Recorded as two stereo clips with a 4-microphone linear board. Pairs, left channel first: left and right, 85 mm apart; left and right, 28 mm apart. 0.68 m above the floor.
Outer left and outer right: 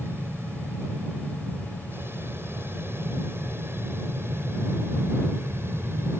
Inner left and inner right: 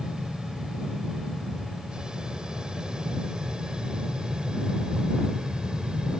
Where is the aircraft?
25° right (ahead or behind).